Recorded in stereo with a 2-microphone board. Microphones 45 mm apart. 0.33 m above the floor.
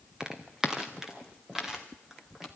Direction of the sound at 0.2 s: 15° right (ahead or behind).